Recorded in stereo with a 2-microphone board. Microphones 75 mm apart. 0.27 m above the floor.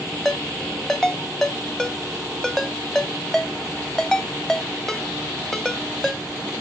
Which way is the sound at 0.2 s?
5° left (ahead or behind).